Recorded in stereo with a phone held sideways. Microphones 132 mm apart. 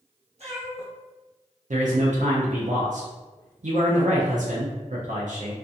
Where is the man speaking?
70° right (ahead or behind), 0.5 m.